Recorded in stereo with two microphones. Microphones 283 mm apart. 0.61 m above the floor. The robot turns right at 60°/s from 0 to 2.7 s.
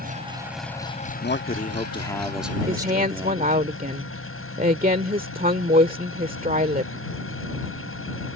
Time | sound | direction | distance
0.0 | an engine running | 35° right | ?
1.2 | a man speaking | 110° left | ?
2.7 | a woman speaking | 35° right (ahead or behind) | ?